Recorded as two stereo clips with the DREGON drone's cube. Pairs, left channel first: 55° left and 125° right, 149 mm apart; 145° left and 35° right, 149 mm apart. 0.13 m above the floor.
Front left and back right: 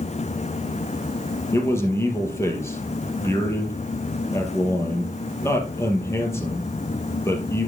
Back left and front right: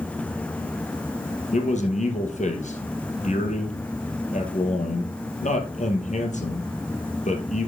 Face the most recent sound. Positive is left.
turn(degrees=125)